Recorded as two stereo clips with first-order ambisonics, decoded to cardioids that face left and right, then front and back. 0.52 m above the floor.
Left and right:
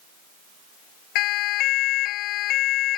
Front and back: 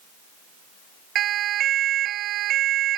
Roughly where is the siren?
Behind left.